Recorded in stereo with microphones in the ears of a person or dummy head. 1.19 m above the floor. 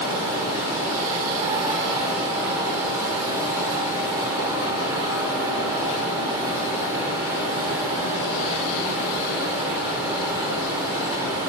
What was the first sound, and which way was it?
A fan, 10° right (ahead or behind).